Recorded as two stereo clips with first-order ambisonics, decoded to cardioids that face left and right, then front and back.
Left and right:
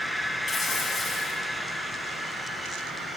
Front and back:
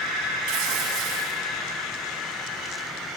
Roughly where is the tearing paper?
Behind.